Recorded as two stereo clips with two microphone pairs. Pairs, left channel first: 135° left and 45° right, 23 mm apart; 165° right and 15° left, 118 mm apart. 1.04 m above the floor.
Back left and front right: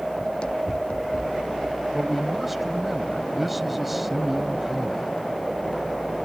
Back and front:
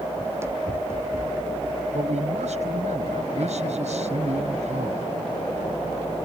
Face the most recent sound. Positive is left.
turn(degrees=30)